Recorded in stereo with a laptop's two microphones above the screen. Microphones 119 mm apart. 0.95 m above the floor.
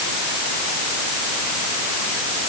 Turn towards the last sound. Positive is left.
No sound to turn to.